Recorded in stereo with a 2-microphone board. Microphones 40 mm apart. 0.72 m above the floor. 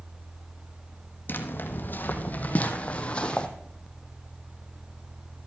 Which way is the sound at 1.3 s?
60° left (ahead or behind).